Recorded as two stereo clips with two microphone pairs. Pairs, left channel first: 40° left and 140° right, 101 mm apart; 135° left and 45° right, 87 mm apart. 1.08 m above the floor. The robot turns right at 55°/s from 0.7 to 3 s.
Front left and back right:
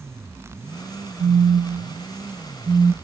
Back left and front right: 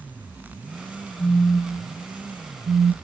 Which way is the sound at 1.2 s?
Straight behind.